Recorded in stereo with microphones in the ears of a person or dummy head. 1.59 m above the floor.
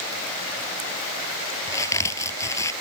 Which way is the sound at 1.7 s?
25° left (ahead or behind).